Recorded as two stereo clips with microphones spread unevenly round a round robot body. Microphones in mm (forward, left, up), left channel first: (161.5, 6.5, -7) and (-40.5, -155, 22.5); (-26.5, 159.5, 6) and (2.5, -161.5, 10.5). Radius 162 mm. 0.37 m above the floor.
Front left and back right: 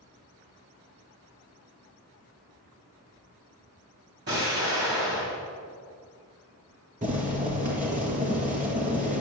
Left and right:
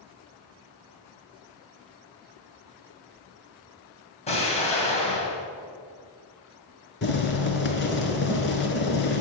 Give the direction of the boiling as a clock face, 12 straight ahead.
7 o'clock.